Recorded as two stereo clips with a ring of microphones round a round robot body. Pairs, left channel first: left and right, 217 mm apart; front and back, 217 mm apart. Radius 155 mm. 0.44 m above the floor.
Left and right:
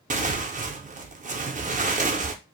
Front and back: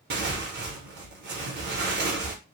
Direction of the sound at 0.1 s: 145° right.